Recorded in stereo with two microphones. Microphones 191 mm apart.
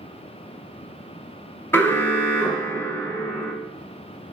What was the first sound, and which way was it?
An alarm, 10° left (ahead or behind).